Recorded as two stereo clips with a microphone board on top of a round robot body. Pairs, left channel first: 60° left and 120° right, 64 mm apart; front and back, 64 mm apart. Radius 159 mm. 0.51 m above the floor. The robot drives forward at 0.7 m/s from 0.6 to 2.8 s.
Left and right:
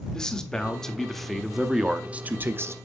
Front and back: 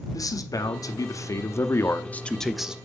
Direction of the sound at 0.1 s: 20° right.